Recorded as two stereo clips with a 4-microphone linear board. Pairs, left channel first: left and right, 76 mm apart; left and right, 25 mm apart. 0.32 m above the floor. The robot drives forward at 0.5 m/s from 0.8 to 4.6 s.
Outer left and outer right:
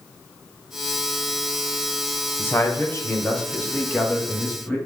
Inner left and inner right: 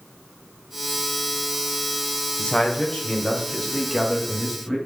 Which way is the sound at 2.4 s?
30° left (ahead or behind).